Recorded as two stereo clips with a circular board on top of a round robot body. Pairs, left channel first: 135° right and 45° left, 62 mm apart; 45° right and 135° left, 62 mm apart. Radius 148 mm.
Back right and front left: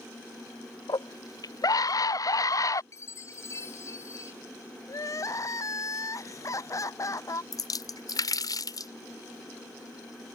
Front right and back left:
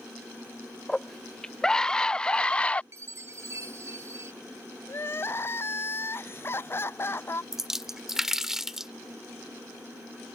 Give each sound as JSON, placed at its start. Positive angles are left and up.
{"t": 0.9, "sound": "a scream", "azimuth_deg": -130}
{"t": 2.9, "sound": "a chime", "azimuth_deg": 180}
{"t": 4.9, "sound": "crying", "azimuth_deg": -100}
{"t": 7.5, "sound": "a splash", "azimuth_deg": -140}